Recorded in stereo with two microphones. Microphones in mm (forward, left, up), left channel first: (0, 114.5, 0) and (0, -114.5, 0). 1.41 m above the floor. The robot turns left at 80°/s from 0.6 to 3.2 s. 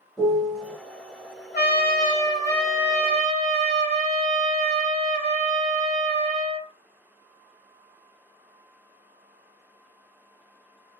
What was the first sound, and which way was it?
A piano, centre (ahead or behind).